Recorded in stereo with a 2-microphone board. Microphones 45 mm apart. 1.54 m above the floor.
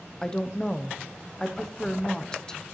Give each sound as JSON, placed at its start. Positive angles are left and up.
{"t": 0.2, "sound": "a woman speaking", "side_deg": 15, "distance_m": 0.7}